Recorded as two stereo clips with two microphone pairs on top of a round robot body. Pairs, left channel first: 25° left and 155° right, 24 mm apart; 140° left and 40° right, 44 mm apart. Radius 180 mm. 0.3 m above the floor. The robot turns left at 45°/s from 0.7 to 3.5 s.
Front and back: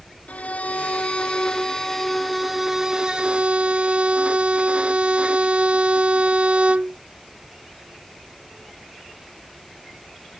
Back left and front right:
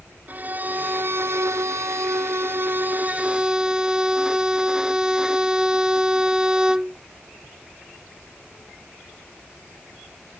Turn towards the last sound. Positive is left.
turn(degrees=-110)